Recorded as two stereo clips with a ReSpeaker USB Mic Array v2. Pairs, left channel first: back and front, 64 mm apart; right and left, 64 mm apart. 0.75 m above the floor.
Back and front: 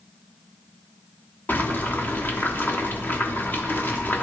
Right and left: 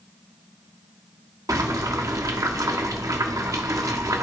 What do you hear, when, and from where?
1.5 s boiling: 120° left, 1.1 m